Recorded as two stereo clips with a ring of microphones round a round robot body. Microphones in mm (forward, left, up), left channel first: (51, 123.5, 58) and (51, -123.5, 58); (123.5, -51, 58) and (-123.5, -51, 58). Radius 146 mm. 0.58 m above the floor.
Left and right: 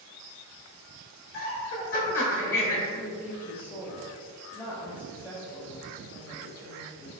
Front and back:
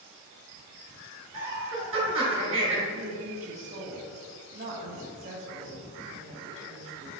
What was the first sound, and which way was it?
Laughter, 120° left.